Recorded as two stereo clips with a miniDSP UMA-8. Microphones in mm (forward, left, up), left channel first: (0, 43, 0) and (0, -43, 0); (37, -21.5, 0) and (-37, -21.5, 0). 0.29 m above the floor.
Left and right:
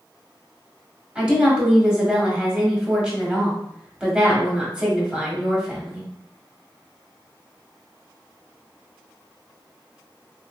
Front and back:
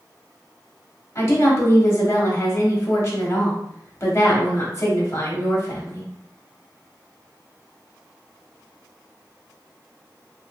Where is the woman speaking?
15° right, 1.2 m.